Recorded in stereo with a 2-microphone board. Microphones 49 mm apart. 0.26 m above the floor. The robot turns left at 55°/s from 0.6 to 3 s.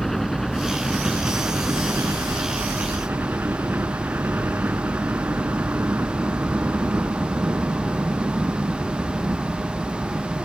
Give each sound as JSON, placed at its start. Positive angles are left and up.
{"t": 0.0, "sound": "a helicopter", "azimuth_deg": 5}